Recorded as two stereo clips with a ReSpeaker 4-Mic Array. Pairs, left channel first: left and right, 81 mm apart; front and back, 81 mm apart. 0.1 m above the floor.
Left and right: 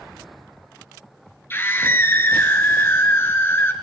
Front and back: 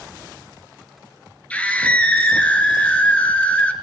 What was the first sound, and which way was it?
A scream, 60° left.